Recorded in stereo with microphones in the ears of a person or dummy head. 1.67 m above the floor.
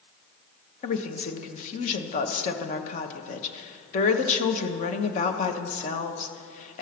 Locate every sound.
0.8 s a woman speaking: 50° left (ahead or behind), 1.1 m